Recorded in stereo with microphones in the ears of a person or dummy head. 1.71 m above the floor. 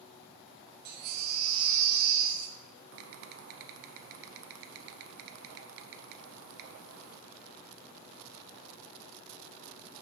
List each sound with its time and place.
0.8 s a baby crying: 55° right (ahead or behind), 1.1 m
2.9 s typing on a keyboard: 55° right (ahead or behind), 0.5 m